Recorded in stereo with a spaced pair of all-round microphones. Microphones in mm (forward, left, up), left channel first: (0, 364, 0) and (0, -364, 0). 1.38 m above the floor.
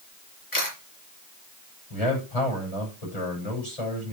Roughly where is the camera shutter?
Left.